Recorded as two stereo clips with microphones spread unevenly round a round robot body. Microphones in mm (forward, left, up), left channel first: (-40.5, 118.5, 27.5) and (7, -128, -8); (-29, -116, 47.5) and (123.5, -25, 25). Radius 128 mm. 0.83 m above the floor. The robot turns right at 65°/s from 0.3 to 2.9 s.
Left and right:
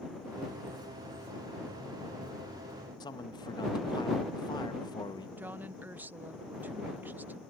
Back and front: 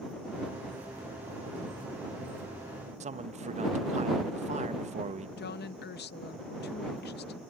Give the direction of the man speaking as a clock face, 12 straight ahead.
11 o'clock.